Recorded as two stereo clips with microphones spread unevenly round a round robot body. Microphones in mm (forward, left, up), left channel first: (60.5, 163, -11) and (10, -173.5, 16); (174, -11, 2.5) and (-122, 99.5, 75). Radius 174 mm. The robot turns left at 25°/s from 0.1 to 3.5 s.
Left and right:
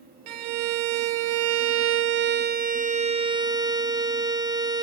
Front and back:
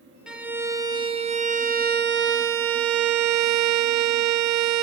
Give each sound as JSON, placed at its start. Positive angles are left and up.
{"t": 0.3, "sound": "a violin", "azimuth_deg": -95, "distance_m": 0.7}